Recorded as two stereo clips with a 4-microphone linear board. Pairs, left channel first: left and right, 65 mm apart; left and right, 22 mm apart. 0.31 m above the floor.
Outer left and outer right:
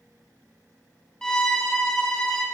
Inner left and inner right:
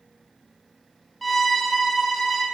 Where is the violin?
10° left (ahead or behind), 1.0 m.